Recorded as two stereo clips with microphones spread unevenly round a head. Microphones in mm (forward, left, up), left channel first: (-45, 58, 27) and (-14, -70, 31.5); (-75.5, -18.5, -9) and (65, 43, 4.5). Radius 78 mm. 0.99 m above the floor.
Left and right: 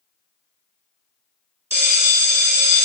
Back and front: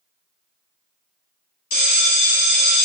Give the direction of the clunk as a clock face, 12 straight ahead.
No clunk in this recording.